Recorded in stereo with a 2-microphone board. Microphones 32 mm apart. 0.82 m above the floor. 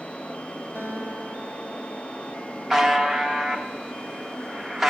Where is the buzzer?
5° right (ahead or behind), 1.1 m.